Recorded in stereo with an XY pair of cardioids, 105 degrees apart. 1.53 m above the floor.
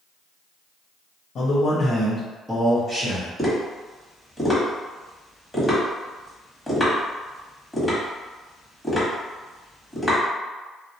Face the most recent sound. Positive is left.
turn(degrees=10)